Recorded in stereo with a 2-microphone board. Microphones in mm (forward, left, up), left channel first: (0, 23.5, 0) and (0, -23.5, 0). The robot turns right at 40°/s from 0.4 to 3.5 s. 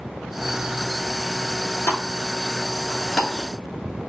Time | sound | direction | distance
1.9 | a pop | 50° left (ahead or behind) | 1.0 m